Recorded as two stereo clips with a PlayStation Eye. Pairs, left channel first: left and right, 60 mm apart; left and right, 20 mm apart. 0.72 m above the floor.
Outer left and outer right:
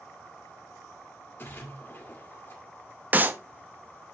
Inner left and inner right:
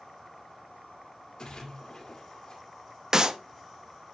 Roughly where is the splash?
Left.